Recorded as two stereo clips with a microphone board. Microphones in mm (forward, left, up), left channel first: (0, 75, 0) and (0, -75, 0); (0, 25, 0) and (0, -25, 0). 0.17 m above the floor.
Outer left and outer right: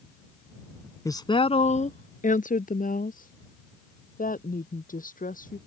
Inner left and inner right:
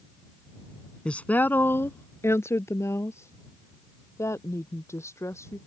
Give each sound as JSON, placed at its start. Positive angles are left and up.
{"t": 1.1, "sound": "a woman speaking", "side_deg": 20}